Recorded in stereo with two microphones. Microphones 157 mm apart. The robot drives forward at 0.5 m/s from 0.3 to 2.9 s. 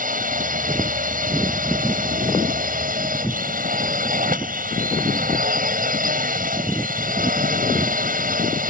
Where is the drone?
55° right (ahead or behind).